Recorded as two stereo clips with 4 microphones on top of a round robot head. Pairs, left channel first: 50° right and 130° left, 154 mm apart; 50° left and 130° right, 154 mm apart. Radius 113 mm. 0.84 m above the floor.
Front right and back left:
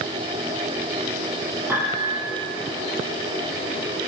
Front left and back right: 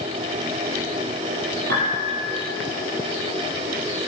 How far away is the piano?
About 6.5 m.